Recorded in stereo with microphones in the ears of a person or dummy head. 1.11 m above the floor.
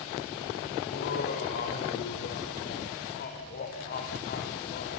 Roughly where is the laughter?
Left.